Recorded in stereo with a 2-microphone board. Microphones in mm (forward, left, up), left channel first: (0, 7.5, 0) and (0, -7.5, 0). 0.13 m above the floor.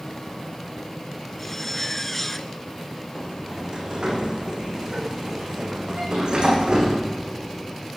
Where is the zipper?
15° left (ahead or behind), 2 m.